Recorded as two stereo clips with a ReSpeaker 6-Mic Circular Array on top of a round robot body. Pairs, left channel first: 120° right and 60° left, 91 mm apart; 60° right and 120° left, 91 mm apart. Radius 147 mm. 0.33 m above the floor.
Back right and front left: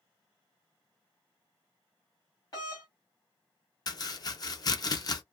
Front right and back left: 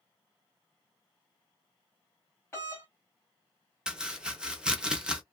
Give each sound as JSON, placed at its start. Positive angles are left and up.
{"t": 2.5, "sound": "a doorbell", "azimuth_deg": -105, "distance_m": 2.5}
{"t": 3.9, "sound": "chopping", "azimuth_deg": -160, "distance_m": 0.9}